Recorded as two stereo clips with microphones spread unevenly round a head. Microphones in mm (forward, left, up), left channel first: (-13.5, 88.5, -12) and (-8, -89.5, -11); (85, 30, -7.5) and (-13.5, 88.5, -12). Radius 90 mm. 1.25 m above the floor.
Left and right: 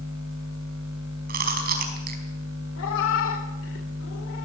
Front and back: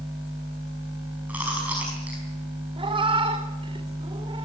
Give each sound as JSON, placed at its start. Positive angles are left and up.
{"t": 1.3, "sound": "chewing", "azimuth_deg": -130, "distance_m": 5.0}
{"t": 2.8, "sound": "a cat meowing", "azimuth_deg": 105, "distance_m": 2.5}